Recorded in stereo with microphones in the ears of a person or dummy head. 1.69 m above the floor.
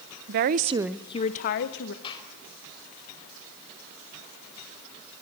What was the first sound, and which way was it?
A woman speaking, 55° right (ahead or behind).